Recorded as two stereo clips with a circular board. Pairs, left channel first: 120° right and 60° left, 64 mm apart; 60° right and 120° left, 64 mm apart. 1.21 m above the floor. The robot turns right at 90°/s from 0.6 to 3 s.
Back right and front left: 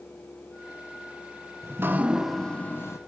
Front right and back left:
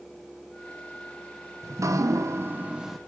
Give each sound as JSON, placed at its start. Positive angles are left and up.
{"t": 1.6, "sound": "dripping", "azimuth_deg": 90, "distance_m": 1.0}